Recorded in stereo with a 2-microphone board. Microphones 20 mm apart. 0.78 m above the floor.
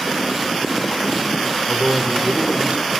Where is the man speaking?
45° right (ahead or behind), 2.5 m; by 2.9 s 70° right (ahead or behind), 2.5 m.